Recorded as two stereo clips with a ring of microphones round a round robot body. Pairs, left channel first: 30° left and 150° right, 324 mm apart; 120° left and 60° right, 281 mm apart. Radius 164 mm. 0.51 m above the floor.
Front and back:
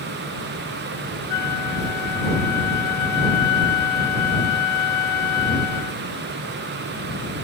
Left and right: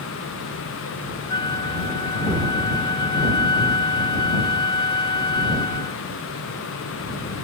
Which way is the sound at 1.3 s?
50° left.